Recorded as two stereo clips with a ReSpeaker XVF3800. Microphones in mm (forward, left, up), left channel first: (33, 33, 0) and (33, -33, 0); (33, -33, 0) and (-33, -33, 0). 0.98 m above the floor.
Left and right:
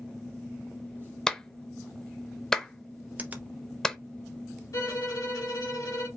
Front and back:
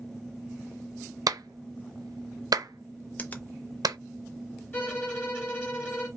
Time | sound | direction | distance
1.3 | a clap | 170° left | 0.5 m
3.2 | a finger snap | 45° right | 0.7 m
4.7 | a violin | 65° left | 2.5 m